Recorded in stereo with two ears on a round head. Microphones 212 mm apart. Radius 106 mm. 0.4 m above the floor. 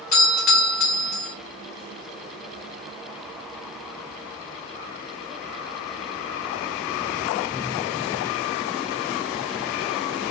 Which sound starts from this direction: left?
A doorbell, at 0.1 s.